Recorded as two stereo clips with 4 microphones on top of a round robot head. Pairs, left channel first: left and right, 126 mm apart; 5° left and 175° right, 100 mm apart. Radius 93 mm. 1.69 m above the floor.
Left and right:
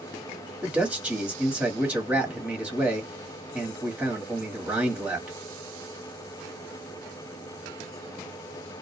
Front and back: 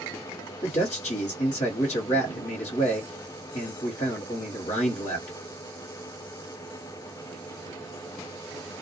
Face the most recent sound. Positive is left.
turn(degrees=-10)